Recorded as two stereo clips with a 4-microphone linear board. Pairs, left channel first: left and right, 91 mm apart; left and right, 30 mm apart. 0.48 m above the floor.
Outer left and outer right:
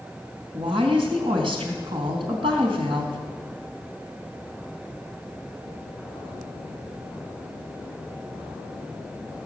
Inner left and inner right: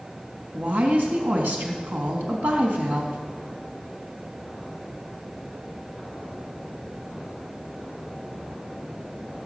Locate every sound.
0.5 s a woman speaking: 80° right, 3.5 m